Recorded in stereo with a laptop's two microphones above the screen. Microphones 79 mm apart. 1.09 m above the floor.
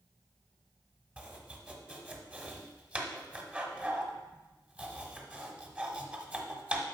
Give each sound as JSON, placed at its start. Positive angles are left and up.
{"t": 1.2, "sound": "chopping", "side_deg": -15, "distance_m": 1.0}